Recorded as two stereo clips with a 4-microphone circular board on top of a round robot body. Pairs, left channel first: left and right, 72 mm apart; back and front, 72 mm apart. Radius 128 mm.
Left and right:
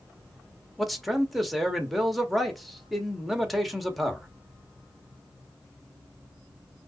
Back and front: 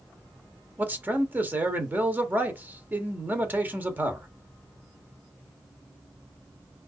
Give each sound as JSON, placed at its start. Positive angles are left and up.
{"t": 0.8, "sound": "a man speaking", "azimuth_deg": 0, "distance_m": 1.0}